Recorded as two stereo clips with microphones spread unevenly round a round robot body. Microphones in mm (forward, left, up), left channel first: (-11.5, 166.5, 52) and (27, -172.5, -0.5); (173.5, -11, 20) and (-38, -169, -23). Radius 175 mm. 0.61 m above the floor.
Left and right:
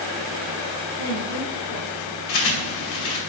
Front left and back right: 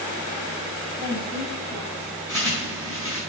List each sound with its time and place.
1.0 s a woman speaking: 105° left, 3 m; by 2.1 s 130° left, 3 m
2.3 s a bird: 130° left, 4 m